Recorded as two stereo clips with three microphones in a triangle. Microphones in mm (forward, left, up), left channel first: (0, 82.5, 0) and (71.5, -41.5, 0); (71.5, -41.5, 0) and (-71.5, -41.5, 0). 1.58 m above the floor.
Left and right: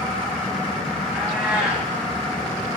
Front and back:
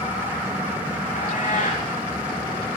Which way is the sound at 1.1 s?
25° left.